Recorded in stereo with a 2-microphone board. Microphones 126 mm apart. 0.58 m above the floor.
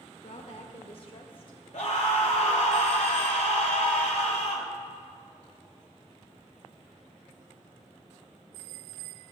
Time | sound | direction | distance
0.2 | a woman speaking | 60° left (ahead or behind) | 1.8 m
1.7 | a scream | 65° left (ahead or behind) | 2 m